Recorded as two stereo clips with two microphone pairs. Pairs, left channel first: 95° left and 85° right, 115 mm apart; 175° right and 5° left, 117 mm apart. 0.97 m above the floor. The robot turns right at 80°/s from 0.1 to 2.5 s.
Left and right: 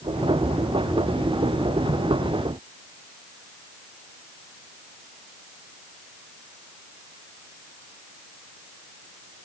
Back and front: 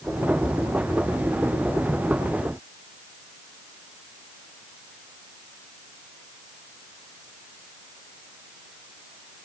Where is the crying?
No crying in this recording.